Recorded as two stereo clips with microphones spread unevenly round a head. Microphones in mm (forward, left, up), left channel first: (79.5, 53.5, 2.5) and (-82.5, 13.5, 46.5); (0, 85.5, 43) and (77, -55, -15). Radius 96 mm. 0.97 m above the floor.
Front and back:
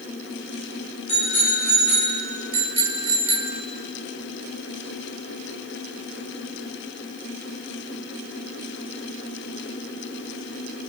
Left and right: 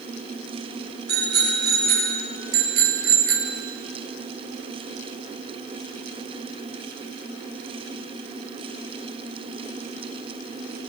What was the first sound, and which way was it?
A bicycle bell, 45° right.